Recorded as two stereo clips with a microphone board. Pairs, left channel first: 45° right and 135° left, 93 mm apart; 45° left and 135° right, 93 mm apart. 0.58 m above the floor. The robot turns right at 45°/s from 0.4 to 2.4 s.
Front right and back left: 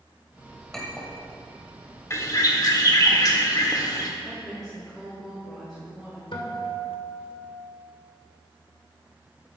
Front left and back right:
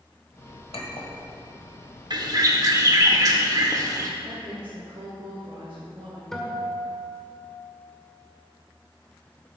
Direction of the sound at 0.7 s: 40° left.